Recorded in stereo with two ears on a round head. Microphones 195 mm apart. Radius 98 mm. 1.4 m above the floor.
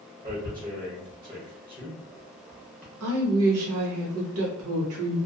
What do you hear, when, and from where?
0.2 s tearing paper: 20° right (ahead or behind), 1.0 m
3.0 s a woman speaking: 75° right (ahead or behind), 0.8 m